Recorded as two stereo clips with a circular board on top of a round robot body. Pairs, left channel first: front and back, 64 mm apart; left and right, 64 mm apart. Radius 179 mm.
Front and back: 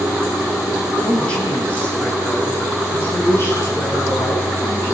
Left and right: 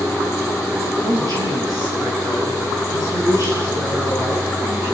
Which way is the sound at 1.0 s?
75° right.